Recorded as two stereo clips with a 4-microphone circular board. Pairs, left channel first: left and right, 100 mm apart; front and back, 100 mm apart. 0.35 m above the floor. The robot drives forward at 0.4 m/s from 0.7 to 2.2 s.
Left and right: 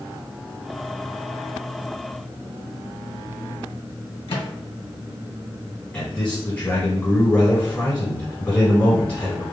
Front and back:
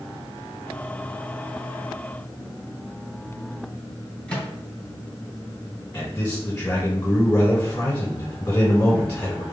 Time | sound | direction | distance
4.3 | a microwave | 80° left | 1.9 m
5.9 | a man speaking | 55° left | 1.2 m